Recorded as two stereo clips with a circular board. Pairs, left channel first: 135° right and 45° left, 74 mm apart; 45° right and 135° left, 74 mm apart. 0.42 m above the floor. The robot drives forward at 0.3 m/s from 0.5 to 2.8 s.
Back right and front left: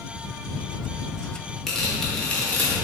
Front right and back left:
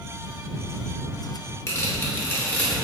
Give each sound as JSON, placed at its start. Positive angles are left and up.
{"t": 1.7, "sound": "tearing paper", "azimuth_deg": -50, "distance_m": 0.7}